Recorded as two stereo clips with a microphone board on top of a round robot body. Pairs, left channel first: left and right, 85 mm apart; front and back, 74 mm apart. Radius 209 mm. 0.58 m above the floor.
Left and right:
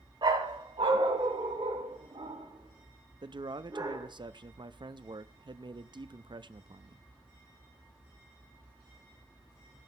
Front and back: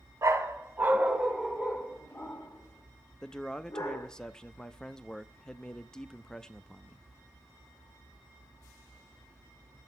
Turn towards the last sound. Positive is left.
turn(degrees=-80)